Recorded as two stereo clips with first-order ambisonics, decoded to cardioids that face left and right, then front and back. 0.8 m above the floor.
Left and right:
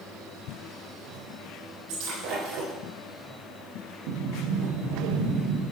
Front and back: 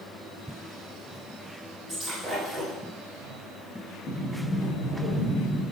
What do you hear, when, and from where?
1.9 s breaking glass: 90° right, 7.5 m
4.1 s a sliding door: 75° right, 6 m